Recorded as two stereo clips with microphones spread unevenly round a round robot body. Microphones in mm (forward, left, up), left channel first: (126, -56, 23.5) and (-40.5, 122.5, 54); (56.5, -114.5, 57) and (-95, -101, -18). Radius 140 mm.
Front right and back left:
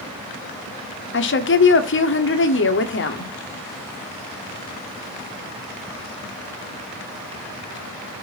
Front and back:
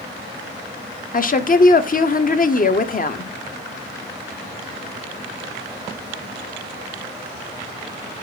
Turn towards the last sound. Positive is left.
turn(degrees=-50)